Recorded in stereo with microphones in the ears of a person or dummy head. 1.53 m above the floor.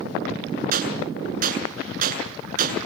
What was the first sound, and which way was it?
A gunshot, 55° right (ahead or behind).